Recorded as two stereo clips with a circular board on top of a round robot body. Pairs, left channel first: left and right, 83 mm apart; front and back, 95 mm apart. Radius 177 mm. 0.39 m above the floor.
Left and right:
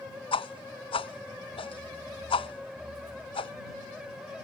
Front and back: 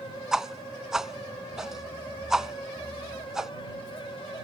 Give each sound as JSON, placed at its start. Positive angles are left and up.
{"t": 0.3, "sound": "a whoosh", "azimuth_deg": 95}